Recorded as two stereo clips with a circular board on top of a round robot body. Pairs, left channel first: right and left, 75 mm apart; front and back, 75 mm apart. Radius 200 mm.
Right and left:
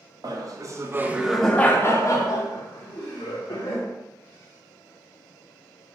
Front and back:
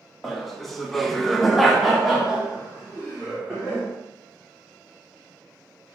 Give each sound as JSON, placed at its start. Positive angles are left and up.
{"t": 0.2, "sound": "laughter", "azimuth_deg": 90, "distance_m": 0.9}